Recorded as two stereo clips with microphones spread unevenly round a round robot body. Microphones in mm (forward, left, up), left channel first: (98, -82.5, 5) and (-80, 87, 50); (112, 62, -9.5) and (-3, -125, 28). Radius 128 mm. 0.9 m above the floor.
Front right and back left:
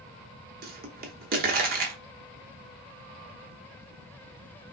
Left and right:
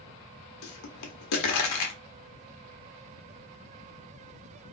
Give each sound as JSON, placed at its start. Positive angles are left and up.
{"t": 0.6, "sound": "a pop", "azimuth_deg": 85, "distance_m": 0.6}